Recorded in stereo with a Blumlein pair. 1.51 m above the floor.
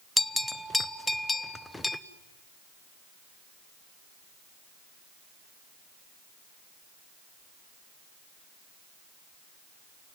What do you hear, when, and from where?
0.2 s a bell: 5° left, 0.8 m